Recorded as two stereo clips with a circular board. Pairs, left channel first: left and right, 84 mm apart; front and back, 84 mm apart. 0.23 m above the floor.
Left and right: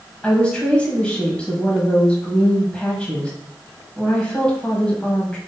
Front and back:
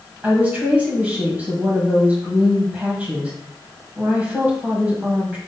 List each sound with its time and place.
0.2 s a woman speaking: 145° left, 1.6 m